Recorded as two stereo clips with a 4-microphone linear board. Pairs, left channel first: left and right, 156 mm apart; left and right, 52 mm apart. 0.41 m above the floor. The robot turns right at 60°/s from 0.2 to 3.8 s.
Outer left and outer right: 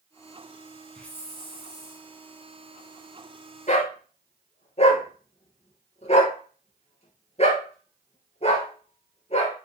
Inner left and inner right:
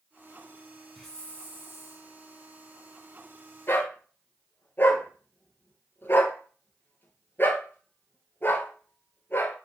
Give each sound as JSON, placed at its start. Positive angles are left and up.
{"t": 0.9, "sound": "a hiss", "azimuth_deg": 5, "distance_m": 1.9}
{"t": 3.7, "sound": "a dog barking", "side_deg": 50, "distance_m": 3.0}